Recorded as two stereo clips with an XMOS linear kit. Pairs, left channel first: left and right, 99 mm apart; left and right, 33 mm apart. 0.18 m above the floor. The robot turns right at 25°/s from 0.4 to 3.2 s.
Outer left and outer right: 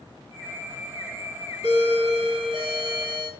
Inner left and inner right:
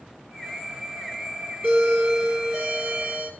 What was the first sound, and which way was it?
A doorbell, 125° right.